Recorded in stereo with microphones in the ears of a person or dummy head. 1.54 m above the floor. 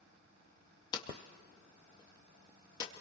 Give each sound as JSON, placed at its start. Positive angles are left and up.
{"t": 0.9, "sound": "hammering", "side_deg": 25, "distance_m": 2.0}